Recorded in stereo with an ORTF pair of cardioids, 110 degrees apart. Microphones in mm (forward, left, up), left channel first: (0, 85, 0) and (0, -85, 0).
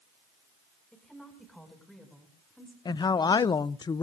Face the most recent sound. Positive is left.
turn(degrees=25)